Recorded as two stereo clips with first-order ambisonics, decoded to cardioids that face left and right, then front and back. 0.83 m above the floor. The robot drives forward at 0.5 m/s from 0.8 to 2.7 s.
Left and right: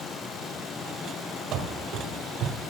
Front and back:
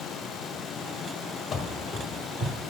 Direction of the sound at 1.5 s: 65° right.